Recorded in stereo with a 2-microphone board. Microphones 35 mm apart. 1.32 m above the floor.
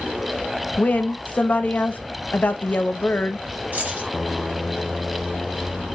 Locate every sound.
0.8 s a woman speaking: 50° left (ahead or behind), 0.6 m
3.7 s keys jangling: 60° right (ahead or behind), 1.8 m